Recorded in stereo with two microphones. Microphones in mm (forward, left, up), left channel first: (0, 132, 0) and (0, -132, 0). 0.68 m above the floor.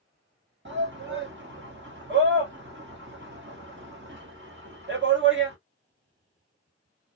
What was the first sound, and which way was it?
A shout, 45° right (ahead or behind).